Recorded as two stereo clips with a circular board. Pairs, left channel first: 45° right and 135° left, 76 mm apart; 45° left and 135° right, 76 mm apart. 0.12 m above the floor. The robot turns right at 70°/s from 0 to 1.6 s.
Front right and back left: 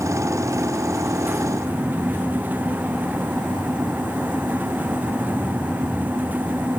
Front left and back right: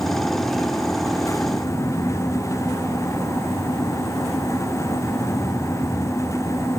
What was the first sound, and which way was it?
Only background noise.